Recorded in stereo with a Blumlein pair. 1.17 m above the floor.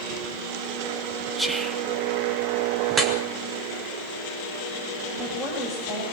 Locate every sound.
1.4 s whispering: 10° right, 1.9 m
2.9 s dripping: 20° right, 3 m
5.1 s a woman speaking: straight ahead, 5.5 m